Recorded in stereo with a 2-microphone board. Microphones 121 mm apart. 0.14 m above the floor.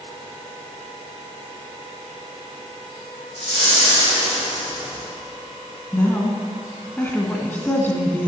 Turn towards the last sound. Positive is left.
turn(degrees=15)  # may be behind; listen again after turning